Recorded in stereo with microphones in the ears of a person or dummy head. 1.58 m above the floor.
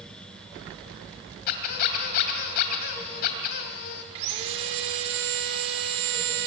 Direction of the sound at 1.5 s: 50° left (ahead or behind).